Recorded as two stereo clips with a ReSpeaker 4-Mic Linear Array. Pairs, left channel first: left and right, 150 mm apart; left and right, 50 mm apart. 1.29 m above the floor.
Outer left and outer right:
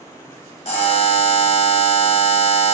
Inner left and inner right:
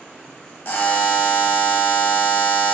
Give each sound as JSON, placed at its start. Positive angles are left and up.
{"t": 0.7, "sound": "a buzzer", "side_deg": 45, "distance_m": 0.8}